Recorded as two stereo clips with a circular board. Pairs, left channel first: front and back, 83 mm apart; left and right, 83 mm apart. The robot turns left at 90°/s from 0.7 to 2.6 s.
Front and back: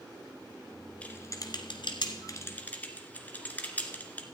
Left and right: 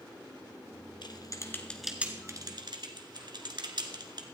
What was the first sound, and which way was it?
Typing on a keyboard, 75° left.